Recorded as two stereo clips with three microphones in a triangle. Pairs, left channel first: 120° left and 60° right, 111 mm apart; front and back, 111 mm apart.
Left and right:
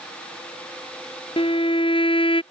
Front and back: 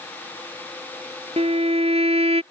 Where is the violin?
155° left.